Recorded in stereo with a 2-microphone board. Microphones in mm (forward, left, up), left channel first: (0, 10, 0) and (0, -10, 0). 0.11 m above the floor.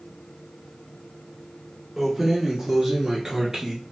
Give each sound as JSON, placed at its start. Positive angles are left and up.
{"t": 2.0, "sound": "keys jangling", "side_deg": -20, "distance_m": 0.9}